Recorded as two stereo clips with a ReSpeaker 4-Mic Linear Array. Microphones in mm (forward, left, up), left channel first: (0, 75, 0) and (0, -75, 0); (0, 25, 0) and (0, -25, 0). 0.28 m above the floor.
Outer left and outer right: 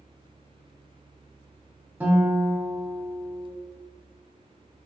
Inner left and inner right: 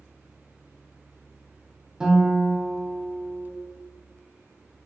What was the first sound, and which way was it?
A guitar, 10° right (ahead or behind).